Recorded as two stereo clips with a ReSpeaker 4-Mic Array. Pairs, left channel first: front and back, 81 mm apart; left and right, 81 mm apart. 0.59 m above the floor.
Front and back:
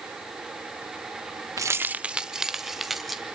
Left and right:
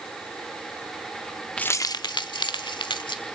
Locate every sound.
1.6 s keys jangling: 165° left, 0.5 m; by 3.2 s 90° left, 2.5 m